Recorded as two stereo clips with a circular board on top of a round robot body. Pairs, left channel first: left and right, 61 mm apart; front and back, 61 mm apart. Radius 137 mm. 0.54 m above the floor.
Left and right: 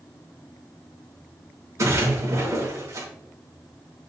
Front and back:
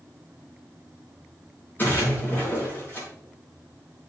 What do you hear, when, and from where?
1.8 s a splash: 55° right, 5.5 m